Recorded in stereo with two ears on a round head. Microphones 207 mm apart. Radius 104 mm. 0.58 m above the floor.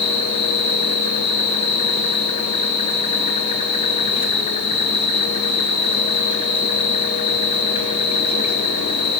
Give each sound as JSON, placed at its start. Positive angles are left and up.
{"t": 0.0, "sound": "an insect", "side_deg": 25, "distance_m": 3.0}